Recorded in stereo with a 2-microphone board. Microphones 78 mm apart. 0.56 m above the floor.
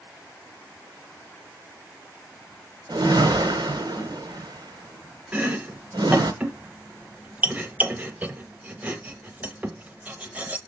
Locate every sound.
2.9 s a whoosh: 60° right (ahead or behind), 1.3 m
5.3 s chopping: 20° right (ahead or behind), 0.8 m